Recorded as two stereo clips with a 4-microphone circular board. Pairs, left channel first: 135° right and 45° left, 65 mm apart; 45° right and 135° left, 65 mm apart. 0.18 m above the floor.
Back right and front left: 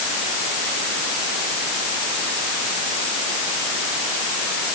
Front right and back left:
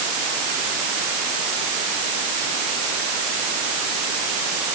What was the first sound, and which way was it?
Only background noise.